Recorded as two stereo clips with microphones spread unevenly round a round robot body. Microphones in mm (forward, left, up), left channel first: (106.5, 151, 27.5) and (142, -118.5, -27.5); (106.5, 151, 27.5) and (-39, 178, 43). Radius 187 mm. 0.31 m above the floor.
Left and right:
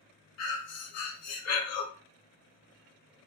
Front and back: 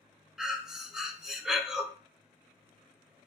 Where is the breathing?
80° left, 0.8 m.